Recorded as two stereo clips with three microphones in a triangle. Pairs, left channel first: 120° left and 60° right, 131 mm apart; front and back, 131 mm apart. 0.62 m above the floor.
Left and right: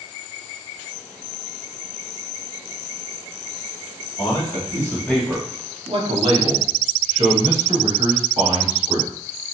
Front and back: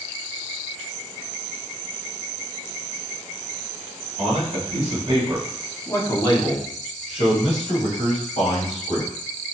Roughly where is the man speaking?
Behind.